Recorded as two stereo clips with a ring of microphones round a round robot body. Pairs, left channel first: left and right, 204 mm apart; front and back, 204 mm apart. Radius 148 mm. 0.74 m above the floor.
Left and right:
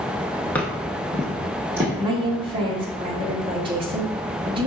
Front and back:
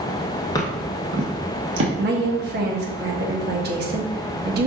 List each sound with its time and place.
0.6 s footsteps: 25° left, 0.7 m; by 1.9 s 170° right, 1.4 m
2.0 s a woman speaking: 155° right, 0.9 m